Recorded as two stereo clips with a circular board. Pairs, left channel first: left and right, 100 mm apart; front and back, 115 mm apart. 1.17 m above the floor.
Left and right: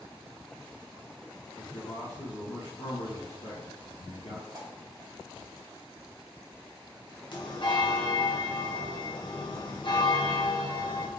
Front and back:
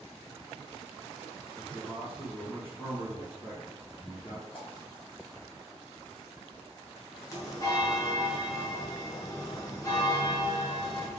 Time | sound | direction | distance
1.6 | a man speaking | 50° left | 1.2 m
4.5 | a pop | 40° right | 1.6 m
7.3 | a bell | 55° left | 0.9 m